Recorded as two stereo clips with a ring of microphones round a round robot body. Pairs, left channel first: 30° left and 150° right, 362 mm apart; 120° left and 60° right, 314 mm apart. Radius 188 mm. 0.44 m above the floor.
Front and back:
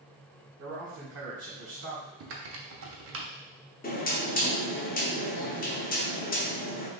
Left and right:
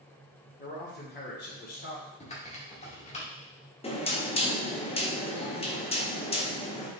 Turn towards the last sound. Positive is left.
turn(degrees=70)